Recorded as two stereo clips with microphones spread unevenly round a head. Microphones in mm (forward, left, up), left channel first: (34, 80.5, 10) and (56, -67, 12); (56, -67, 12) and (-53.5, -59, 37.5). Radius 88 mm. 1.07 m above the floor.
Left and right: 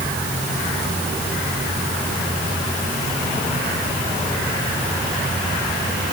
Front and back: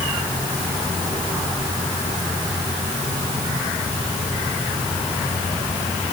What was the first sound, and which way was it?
Only background noise.